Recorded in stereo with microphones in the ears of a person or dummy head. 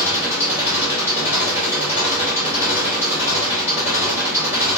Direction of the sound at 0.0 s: 15° right (ahead or behind).